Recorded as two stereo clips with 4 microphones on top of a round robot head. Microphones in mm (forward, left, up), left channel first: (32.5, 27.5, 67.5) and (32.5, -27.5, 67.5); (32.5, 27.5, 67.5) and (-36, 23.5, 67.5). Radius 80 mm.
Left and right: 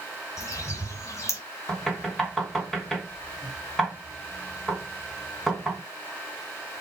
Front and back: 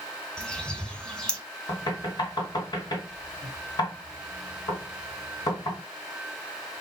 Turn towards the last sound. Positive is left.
turn(degrees=5)